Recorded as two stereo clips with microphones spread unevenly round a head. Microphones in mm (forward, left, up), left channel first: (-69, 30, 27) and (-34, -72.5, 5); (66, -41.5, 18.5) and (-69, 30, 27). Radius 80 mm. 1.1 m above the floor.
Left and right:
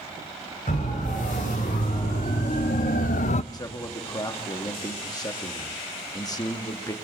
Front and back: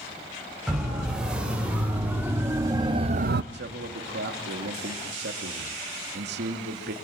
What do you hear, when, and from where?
0.7 s a siren: 65° left, 4.5 m; by 3.4 s 135° left, 0.6 m
3.5 s a man speaking: 165° left, 2.5 m